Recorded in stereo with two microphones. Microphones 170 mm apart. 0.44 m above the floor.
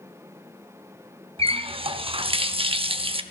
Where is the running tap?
35° right (ahead or behind), 0.6 m.